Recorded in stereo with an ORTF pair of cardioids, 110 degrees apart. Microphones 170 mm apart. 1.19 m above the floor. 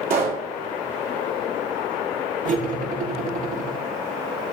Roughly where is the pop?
Ahead right.